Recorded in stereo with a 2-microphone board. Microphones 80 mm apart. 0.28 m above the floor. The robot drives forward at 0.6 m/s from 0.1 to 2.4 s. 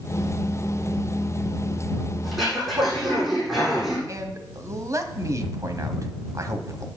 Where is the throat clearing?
5° right (ahead or behind), 9 m.